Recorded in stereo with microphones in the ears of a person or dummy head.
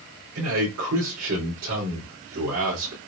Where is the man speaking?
85° right, 3 m.